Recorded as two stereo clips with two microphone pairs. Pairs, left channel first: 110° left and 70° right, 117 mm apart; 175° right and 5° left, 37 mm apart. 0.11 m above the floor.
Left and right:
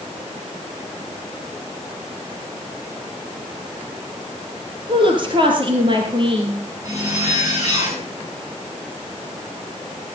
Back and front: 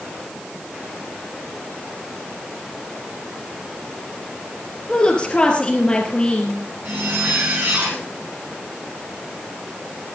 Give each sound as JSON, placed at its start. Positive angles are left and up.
{"t": 4.9, "sound": "a woman speaking", "azimuth_deg": -110, "distance_m": 2.0}
{"t": 6.8, "sound": "a zipper", "azimuth_deg": -10, "distance_m": 8.5}